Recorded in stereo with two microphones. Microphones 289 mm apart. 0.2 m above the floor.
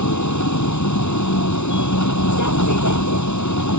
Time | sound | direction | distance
0.0 | a vehicle | 80° left | ?